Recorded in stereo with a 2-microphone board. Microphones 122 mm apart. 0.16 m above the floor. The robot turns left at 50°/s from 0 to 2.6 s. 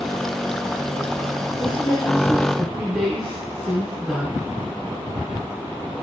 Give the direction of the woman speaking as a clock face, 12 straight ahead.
10 o'clock.